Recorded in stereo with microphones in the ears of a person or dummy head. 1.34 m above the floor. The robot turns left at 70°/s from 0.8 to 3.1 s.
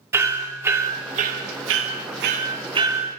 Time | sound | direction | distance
0.1 | hammering | 15° right (ahead or behind) | 1.8 m